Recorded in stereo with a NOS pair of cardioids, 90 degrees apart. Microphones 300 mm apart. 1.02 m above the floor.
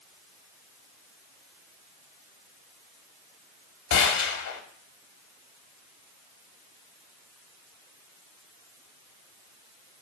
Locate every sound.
3.9 s a gunshot: 65° left, 1.9 m